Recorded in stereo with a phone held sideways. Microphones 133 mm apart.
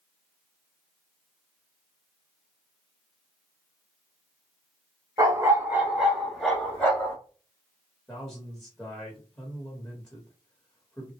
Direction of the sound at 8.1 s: 10° left (ahead or behind).